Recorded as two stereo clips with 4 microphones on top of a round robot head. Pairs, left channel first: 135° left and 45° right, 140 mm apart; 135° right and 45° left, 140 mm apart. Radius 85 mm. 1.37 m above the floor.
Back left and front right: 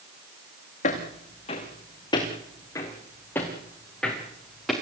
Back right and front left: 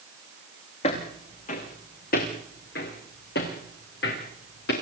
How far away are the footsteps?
About 5.5 m.